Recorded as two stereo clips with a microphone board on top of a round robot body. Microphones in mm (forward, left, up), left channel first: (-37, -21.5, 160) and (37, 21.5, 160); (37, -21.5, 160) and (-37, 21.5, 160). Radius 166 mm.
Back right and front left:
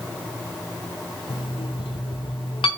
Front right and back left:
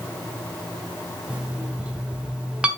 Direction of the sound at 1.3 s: 130° right.